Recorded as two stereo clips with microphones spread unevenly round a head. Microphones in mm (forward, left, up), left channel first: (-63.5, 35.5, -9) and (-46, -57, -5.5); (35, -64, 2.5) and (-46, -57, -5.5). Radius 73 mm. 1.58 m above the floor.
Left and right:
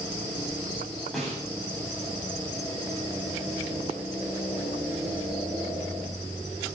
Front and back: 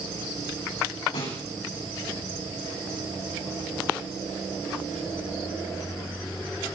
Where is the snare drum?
15° left, 9 m.